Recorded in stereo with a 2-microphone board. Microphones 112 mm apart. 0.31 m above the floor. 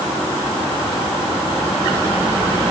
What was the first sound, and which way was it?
Only background noise.